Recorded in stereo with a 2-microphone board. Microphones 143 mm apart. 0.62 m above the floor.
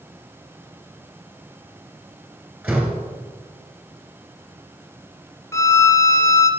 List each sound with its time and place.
2.6 s a door slam: 5° right (ahead or behind), 2.5 m
5.5 s a violin: 20° left (ahead or behind), 1.0 m